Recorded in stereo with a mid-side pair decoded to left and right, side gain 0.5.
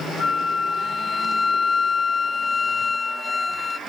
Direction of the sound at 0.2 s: 25° left.